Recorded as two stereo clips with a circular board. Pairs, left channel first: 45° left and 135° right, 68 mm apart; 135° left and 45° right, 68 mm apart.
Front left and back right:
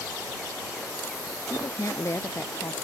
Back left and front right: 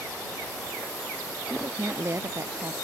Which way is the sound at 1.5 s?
5° left.